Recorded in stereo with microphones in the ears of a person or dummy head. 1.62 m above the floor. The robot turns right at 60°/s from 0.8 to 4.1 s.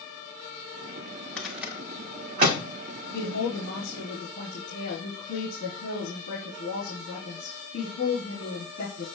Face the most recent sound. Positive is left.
turn(degrees=115)